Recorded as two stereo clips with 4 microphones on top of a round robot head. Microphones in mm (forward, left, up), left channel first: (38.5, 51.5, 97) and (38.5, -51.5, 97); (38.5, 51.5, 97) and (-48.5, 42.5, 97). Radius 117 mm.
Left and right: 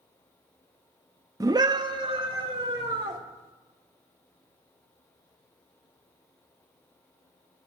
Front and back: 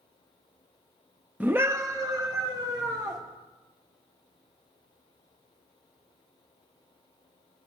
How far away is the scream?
About 0.8 m.